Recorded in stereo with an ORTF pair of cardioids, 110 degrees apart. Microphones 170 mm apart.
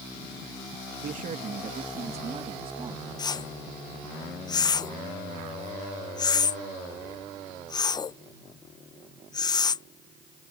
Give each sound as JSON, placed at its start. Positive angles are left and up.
{"t": 1.0, "sound": "a man speaking", "azimuth_deg": -55}
{"t": 3.2, "sound": "a whoosh", "azimuth_deg": 25}